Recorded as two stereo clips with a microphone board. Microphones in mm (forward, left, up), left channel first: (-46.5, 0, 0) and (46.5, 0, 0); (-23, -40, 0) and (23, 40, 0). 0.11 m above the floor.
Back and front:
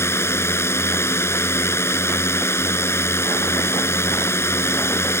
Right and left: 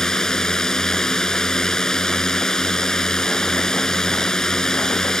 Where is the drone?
165° left.